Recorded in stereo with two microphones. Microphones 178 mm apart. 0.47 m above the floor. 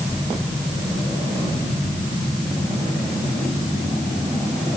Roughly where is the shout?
No shout in this recording.